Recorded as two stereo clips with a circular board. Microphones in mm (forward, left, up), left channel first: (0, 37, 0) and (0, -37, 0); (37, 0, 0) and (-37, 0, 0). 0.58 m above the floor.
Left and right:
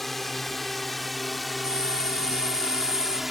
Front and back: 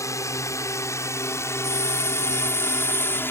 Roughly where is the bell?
Ahead right.